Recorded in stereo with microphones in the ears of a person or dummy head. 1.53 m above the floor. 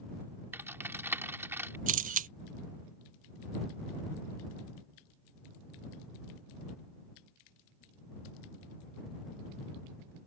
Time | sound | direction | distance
0.5 | typing on a keyboard | 10° right (ahead or behind) | ?
1.9 | a camera shutter | 45° right (ahead or behind) | ?